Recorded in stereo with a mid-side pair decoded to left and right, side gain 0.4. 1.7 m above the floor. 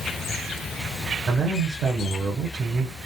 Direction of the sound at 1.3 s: 50° right.